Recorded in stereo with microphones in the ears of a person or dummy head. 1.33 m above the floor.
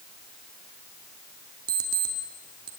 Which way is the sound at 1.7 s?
55° right (ahead or behind).